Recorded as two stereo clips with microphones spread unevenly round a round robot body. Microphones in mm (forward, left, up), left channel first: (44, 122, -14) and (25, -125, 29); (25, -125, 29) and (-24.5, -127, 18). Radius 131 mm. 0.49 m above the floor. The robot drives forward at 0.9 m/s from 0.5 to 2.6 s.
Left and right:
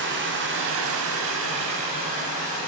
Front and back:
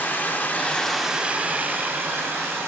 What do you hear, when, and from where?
0.0 s running water: 55° right, 0.8 m; by 2.7 s 160° right, 1.7 m